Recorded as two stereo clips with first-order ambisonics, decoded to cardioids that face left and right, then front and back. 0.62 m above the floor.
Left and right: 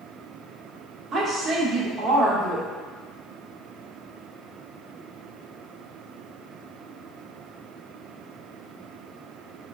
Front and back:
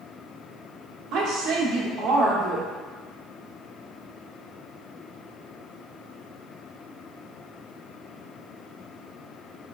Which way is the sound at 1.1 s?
145° right.